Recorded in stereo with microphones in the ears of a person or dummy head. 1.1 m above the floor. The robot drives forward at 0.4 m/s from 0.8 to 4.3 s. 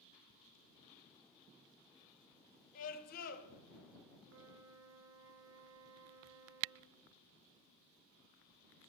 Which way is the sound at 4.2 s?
70° right (ahead or behind).